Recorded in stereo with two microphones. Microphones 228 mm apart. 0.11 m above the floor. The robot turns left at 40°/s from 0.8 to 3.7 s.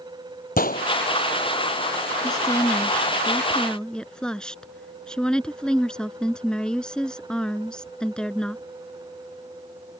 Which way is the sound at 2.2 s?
20° left (ahead or behind).